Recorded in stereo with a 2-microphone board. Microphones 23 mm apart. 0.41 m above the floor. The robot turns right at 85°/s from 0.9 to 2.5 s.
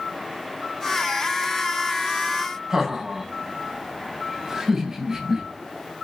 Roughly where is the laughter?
Right.